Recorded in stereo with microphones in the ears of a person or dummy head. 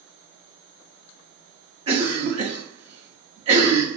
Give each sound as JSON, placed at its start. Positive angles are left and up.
{"t": 1.9, "sound": "a cough", "side_deg": -30, "distance_m": 0.9}